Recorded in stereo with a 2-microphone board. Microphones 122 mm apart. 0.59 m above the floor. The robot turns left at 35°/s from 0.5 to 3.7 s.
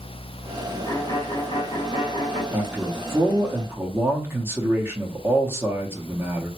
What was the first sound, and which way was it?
A violin, 130° left.